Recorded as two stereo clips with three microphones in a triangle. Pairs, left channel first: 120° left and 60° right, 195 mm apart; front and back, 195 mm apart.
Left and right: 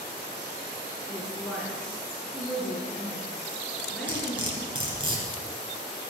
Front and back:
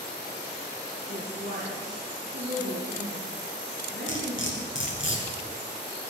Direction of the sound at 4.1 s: 5° left.